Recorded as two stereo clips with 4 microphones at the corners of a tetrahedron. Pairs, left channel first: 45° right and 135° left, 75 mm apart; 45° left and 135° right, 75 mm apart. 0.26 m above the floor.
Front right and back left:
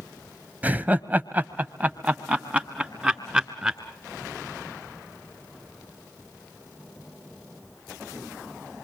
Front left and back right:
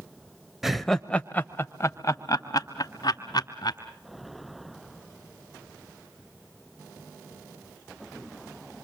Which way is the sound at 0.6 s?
145° left.